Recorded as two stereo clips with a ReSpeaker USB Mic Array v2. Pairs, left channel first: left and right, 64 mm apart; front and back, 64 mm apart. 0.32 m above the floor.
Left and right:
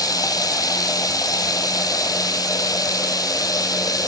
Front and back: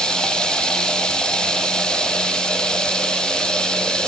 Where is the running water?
80° left, 1.6 m.